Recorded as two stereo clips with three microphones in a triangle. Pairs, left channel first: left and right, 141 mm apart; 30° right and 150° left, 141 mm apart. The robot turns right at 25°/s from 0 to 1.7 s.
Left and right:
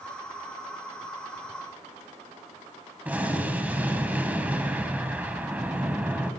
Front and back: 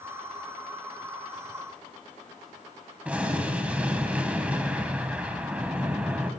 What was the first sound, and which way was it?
An explosion, 145° right.